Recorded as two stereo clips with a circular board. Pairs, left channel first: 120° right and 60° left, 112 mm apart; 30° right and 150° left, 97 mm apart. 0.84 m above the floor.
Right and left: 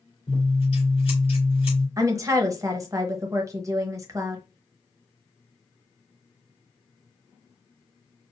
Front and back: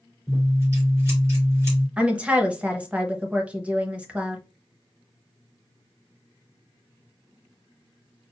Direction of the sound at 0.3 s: 150° right.